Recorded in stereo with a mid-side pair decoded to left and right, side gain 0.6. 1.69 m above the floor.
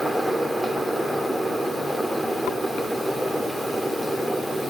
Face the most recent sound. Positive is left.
turn(degrees=0)